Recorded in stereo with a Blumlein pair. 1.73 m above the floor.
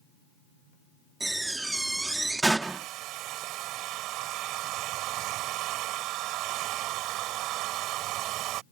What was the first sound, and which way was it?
A door slam, 5° right.